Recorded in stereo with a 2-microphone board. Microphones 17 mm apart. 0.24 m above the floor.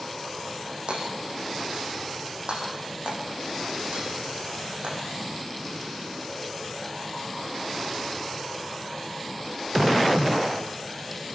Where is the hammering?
70° right (ahead or behind), 8 m.